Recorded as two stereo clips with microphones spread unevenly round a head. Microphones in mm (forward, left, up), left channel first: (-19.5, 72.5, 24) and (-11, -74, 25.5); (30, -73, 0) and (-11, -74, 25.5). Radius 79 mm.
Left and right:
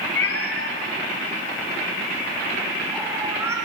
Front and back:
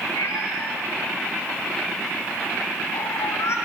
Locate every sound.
0.1 s a cat meowing: 70° left, 4 m; by 3.6 s 15° right, 3.5 m